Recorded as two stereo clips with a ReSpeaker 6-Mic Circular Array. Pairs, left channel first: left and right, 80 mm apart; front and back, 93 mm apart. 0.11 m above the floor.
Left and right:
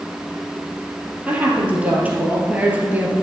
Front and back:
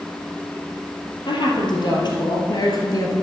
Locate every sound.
1.3 s a woman speaking: 20° right, 2.5 m; by 3.1 s 30° right, 1.6 m